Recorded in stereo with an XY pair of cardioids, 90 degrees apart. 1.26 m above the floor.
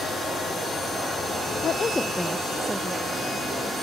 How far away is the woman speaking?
About 0.8 m.